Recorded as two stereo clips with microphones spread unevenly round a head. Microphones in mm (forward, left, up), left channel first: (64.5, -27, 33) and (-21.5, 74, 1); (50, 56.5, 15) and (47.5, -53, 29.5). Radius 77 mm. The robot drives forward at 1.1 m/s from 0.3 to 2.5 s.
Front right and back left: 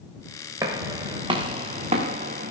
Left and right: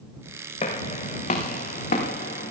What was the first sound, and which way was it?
Footsteps, 60° left.